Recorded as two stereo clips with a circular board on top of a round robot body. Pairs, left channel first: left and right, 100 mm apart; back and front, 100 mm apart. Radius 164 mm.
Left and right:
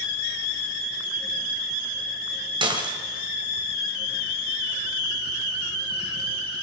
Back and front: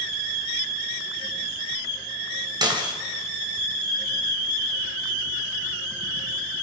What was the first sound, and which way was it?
Dishes clattering, 45° right.